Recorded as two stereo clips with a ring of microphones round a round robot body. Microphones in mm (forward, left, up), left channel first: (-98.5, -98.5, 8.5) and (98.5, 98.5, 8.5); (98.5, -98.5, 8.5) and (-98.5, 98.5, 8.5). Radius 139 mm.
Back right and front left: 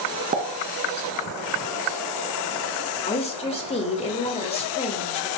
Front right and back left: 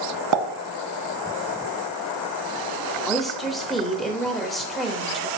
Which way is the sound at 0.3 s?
110° left.